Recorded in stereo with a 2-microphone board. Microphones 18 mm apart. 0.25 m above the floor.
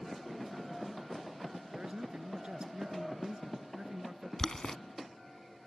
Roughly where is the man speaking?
Right.